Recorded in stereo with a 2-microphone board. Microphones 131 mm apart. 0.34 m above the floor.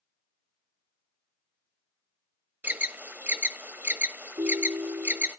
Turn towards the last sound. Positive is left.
turn(degrees=-30)  # may be behind; listen again after turning